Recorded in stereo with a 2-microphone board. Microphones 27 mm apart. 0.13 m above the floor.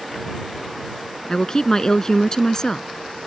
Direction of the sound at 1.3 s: 25° left (ahead or behind).